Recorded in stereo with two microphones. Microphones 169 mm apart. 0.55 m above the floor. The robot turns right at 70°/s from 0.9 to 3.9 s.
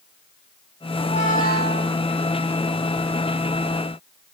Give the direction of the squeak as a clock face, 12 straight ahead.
11 o'clock.